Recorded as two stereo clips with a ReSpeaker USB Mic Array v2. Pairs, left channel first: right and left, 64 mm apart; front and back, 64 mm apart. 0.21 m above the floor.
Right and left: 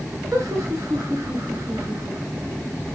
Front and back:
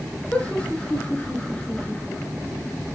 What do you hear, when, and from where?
0.3 s laughter: 70° left, 3 m